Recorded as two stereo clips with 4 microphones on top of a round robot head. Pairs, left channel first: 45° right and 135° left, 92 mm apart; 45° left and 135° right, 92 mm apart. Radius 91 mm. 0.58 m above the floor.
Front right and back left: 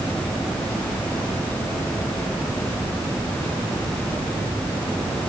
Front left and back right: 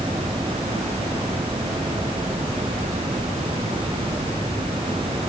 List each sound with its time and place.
Only background noise.